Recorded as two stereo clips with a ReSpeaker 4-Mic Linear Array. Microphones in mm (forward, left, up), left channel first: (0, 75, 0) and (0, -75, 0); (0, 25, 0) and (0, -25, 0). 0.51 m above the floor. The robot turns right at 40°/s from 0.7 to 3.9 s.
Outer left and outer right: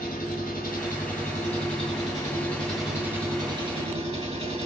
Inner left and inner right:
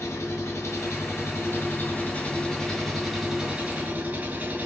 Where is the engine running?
95° left, 3 m; by 4.7 s 135° right, 3 m.